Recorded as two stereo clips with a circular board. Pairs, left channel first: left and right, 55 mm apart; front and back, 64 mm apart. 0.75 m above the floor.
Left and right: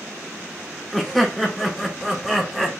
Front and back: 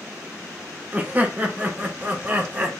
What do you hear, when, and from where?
0.9 s laughter: 175° right, 0.7 m